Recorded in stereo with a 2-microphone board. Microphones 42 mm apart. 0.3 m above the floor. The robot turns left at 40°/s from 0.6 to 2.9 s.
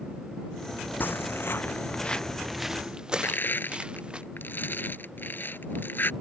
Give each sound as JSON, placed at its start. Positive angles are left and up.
{"t": 1.0, "sound": "footsteps", "side_deg": 50}
{"t": 3.2, "sound": "crushing", "side_deg": 55}